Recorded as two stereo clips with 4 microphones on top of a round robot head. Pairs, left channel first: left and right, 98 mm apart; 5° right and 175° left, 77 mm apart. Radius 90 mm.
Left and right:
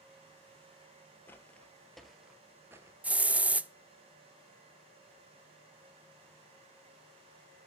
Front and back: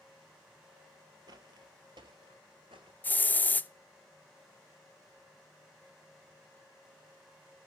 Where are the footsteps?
155° left, 1.1 m; by 2.9 s 135° right, 0.9 m.